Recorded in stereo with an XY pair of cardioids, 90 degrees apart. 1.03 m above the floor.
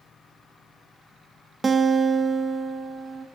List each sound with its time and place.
1.6 s a guitar: 35° right, 0.7 m